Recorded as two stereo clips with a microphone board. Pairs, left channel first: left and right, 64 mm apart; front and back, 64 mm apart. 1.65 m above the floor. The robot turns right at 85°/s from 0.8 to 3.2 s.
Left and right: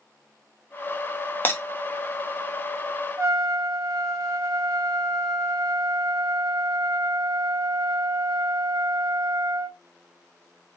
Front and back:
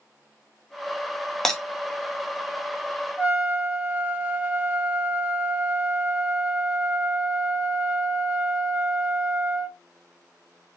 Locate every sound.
1.4 s breaking glass: 75° left, 0.9 m; by 1.6 s 90° left, 0.9 m
3.2 s a trumpet: 115° right, 1.5 m; by 9.8 s 110° right, 1.5 m